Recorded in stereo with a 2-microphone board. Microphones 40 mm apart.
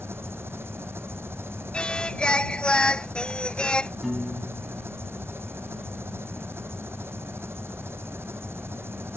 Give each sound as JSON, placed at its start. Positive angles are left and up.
{"t": 0.0, "sound": "an engine running", "side_deg": -85}
{"t": 1.7, "sound": "singing", "side_deg": 25}
{"t": 4.0, "sound": "a piano", "side_deg": -10}